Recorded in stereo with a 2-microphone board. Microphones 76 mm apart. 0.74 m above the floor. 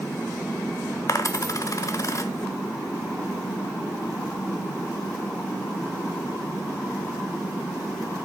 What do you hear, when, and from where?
1.1 s a dropped coin: 45° left (ahead or behind), 0.7 m